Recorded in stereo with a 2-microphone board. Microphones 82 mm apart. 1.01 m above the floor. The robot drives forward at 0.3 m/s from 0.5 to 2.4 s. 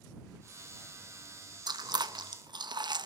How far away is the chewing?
About 0.9 m.